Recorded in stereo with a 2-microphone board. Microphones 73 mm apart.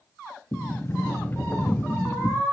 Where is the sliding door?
30° left (ahead or behind), 0.9 m.